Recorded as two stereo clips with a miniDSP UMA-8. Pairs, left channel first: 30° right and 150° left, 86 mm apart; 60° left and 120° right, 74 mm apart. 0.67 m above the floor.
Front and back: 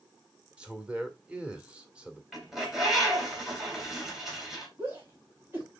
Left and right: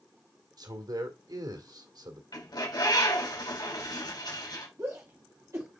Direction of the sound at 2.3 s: 65° left.